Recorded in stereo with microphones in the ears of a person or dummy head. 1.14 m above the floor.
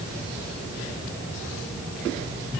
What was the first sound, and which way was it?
Only background noise.